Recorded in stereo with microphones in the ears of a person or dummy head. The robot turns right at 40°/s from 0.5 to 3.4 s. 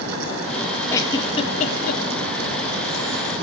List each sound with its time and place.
0.9 s a giggle: 10° left (ahead or behind), 2 m; by 2.0 s 50° left (ahead or behind), 2 m